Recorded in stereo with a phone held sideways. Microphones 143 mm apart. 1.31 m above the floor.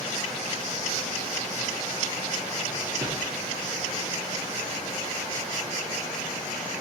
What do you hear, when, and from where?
3.0 s a whoosh: 30° right (ahead or behind), 1.2 m